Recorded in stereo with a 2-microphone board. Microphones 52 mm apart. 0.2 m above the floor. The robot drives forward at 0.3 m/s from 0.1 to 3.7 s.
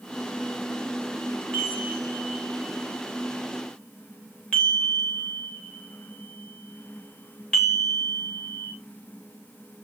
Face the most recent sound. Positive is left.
turn(degrees=15)  # may be behind; listen again after turning